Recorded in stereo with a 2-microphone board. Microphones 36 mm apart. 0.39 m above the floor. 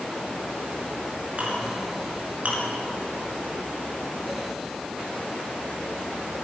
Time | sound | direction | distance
1.4 | a clink | 40° right (ahead or behind) | 4 m